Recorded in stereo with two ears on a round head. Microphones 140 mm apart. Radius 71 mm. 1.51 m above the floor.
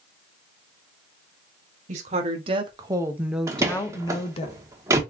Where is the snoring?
I don't hear snoring.